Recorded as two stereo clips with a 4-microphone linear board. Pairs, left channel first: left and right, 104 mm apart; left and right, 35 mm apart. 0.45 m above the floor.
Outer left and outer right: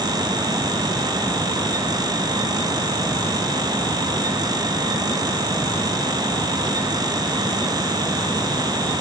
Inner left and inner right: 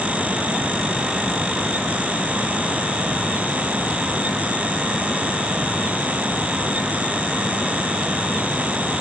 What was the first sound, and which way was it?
Only background noise.